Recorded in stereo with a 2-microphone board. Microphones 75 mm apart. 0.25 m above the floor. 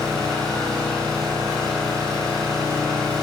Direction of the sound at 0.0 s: 5° left (ahead or behind).